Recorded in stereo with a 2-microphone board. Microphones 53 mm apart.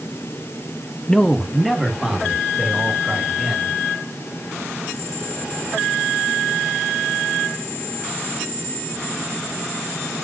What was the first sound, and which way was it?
A man speaking, 10° left (ahead or behind).